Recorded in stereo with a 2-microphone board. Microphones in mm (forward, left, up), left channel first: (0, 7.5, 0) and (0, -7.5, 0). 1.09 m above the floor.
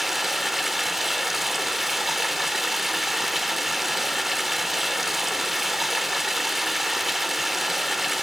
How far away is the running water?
About 1.2 m.